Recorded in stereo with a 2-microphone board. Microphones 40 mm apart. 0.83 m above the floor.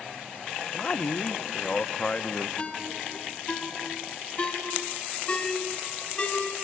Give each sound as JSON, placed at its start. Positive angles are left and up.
{"t": 0.7, "sound": "a man speaking", "side_deg": 30, "distance_m": 0.8}
{"t": 2.6, "sound": "a ringtone", "side_deg": 30, "distance_m": 3.5}